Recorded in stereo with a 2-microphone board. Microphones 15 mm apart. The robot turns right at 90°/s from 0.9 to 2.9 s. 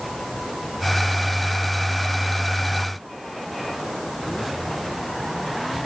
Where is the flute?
I don't hear a flute.